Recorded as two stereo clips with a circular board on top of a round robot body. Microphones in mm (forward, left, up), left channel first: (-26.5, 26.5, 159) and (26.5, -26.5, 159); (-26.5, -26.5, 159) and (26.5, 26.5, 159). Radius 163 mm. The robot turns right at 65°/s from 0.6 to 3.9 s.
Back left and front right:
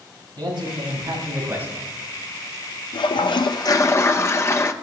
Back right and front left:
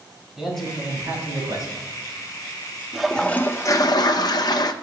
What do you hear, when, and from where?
0.4 s a man speaking: 45° right, 5.5 m; by 1.9 s 40° left, 5.5 m
2.9 s a toilet flushing: 130° left, 0.6 m; by 4.7 s 170° right, 0.6 m